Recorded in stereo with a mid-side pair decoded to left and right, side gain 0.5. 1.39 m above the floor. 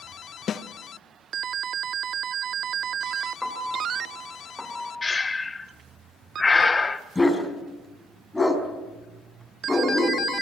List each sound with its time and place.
0.5 s a snare drum: 50° left, 1.2 m
3.4 s a piano: 10° left, 2.5 m
5.0 s breathing: 20° left, 1.5 m
7.2 s a dog barking: 10° left, 5 m